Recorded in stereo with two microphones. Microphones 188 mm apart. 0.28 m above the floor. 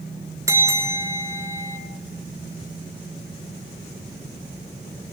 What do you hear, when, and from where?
0.5 s a bell: 15° right (ahead or behind), 2 m